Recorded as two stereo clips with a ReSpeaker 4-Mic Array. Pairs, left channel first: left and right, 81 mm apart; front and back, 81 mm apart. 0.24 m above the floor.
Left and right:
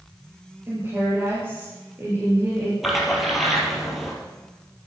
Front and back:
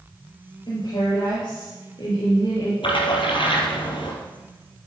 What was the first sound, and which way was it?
A woman speaking, 30° right.